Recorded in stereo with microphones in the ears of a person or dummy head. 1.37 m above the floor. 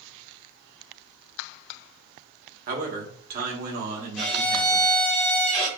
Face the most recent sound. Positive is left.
turn(degrees=0)  # may be behind; listen again after turning